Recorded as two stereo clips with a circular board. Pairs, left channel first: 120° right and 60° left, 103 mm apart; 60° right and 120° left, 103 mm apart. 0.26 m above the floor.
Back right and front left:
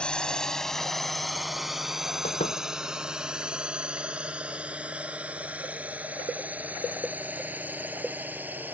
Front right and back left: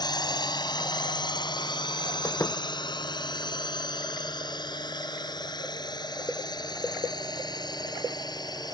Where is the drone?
45° right; by 8.8 s 15° right.